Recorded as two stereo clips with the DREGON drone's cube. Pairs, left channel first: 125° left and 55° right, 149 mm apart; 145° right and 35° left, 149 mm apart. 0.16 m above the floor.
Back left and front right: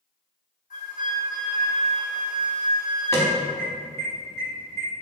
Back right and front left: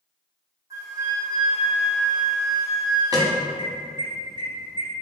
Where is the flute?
100° left, 1.2 m.